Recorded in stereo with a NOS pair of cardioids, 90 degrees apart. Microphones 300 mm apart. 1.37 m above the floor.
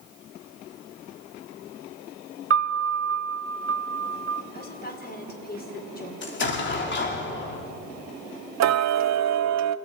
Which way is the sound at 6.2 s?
35° left.